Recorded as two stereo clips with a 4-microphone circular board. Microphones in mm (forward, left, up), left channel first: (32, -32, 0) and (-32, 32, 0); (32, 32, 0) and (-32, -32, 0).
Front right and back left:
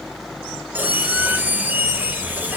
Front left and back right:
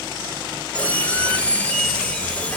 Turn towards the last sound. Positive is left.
turn(degrees=95)